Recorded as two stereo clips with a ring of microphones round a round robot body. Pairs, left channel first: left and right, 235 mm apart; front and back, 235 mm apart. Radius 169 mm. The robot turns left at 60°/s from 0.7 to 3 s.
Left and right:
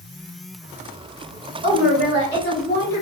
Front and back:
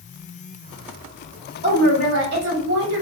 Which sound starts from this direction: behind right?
A woman speaking, at 1.6 s.